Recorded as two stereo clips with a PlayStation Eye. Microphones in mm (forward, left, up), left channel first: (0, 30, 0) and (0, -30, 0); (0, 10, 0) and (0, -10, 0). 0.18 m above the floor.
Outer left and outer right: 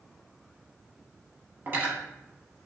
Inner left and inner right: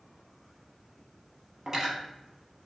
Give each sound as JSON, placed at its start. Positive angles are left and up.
{"t": 1.7, "sound": "cutlery clinking", "side_deg": -35, "distance_m": 0.9}